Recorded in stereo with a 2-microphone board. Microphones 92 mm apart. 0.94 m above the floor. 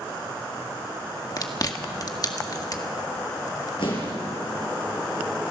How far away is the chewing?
About 1.8 m.